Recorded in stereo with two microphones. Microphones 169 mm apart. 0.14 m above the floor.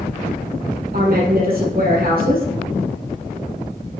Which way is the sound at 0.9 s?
65° right (ahead or behind).